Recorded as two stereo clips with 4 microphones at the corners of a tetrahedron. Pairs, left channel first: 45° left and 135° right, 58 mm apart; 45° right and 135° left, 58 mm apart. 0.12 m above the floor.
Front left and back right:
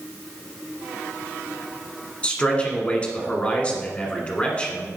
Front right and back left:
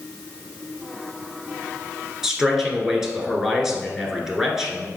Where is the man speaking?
65° left, 1.1 m.